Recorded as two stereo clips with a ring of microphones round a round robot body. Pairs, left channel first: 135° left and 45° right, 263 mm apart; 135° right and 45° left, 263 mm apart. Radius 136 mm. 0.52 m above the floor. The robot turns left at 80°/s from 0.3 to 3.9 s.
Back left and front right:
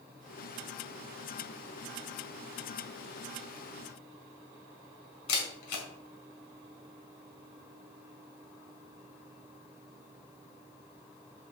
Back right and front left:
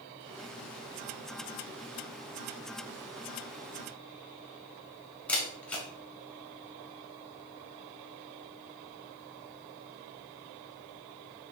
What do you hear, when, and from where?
5.3 s a camera shutter: 140° left, 2.5 m